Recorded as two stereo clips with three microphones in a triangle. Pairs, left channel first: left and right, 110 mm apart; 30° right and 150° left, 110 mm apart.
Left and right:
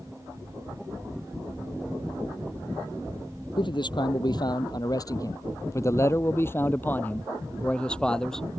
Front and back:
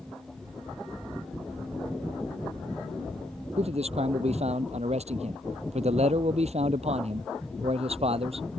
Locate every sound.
3.6 s a man speaking: 135° left; by 8.5 s 175° left